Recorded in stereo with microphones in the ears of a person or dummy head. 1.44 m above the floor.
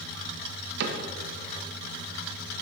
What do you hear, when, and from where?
0.8 s a cupboard door: 75° right (ahead or behind), 0.9 m